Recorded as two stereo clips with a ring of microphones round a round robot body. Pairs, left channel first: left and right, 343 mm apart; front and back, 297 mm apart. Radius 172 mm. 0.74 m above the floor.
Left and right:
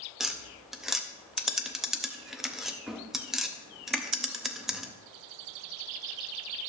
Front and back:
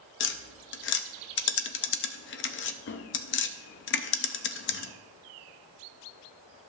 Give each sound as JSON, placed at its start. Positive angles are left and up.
{"t": 0.2, "sound": "tapping", "azimuth_deg": 0, "distance_m": 0.5}